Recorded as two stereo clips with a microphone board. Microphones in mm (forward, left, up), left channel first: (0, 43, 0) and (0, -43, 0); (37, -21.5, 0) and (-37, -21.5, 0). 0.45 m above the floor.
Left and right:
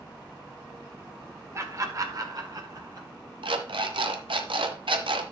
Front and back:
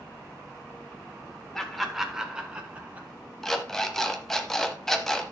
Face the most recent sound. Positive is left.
turn(degrees=-85)